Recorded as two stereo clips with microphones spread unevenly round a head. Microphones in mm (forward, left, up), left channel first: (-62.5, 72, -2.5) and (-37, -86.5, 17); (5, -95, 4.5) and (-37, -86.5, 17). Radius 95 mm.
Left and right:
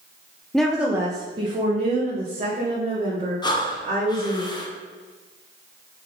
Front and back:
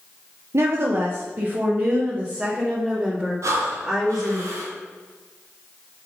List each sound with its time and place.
0.5 s a woman speaking: 175° right, 0.8 m; by 4.4 s 115° right, 2.5 m
3.4 s breathing: 160° left, 1.0 m